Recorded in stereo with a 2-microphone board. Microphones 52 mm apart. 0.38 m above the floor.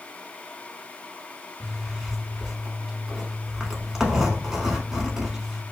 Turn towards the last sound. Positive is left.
turn(degrees=-10)  # may be behind; listen again after turning